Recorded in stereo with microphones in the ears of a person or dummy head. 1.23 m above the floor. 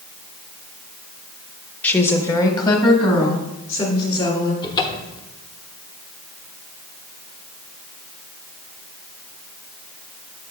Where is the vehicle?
I don't hear a vehicle.